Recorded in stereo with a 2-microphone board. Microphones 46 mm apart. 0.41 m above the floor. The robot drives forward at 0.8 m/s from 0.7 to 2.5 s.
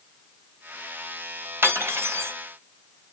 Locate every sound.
1.6 s cutlery clinking: 60° right (ahead or behind), 1.4 m; by 2.3 s 70° right (ahead or behind), 1.4 m